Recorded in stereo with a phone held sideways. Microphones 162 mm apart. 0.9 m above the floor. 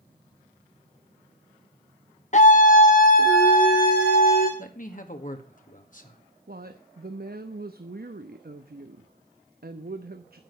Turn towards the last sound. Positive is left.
turn(degrees=-70)  # may be behind; listen again after turning